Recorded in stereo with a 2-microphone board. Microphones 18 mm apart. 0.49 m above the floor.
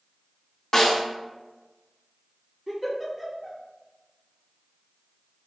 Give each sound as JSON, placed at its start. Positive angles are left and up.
{"t": 0.7, "sound": "a snare drum", "side_deg": 25, "distance_m": 1.2}
{"t": 2.7, "sound": "a giggle", "side_deg": -15, "distance_m": 1.2}